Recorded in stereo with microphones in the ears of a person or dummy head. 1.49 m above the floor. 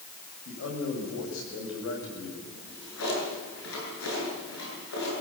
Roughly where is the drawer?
Left.